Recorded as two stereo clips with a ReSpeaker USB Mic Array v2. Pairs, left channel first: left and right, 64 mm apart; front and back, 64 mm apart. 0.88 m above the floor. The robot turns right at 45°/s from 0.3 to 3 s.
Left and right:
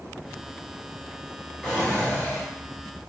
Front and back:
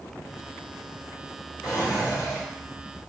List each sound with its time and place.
1.6 s a drawer: 5° left, 1.1 m; by 2.4 s 40° left, 1.1 m